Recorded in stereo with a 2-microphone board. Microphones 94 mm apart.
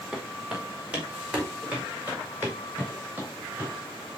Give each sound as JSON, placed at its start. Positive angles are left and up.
{"t": 0.1, "sound": "footsteps", "side_deg": -10, "distance_m": 4.5}